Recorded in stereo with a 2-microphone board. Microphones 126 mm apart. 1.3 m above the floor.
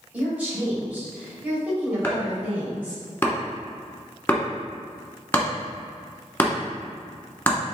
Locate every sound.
0.1 s a woman speaking: 10° right (ahead or behind), 1.8 m
2.0 s chopping: 15° left (ahead or behind), 1.0 m